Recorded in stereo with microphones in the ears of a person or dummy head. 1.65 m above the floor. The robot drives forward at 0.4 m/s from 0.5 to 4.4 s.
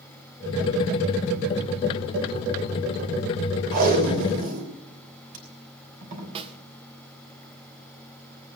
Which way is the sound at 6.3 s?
30° right (ahead or behind).